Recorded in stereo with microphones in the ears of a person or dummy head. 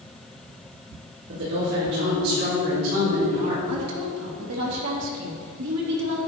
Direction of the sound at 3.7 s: 85° right.